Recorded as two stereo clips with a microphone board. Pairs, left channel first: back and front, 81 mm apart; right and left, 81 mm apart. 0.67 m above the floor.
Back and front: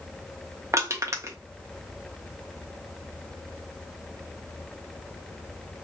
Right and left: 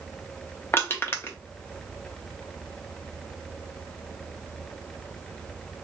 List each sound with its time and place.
0.7 s crushing: 40° right, 0.8 m